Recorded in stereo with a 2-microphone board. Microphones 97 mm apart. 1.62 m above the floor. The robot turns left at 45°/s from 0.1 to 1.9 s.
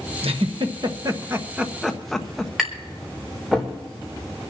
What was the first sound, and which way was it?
A giggle, 70° right (ahead or behind).